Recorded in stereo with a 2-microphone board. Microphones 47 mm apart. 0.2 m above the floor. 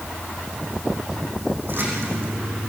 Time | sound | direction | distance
1.6 | a splash | 50° right (ahead or behind) | 8 m